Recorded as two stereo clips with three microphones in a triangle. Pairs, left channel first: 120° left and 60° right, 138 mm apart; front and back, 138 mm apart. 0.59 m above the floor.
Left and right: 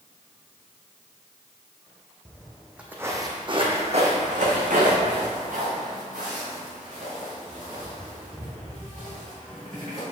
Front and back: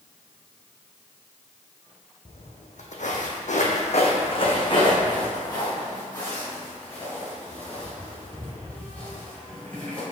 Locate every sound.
2.2 s footsteps: 40° left, 1.7 m; by 10.0 s 80° right, 7 m